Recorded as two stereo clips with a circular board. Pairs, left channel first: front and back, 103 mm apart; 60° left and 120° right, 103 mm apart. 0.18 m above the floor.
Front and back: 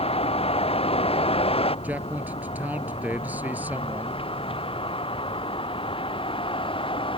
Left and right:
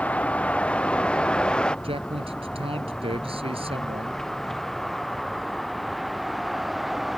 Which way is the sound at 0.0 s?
15° right.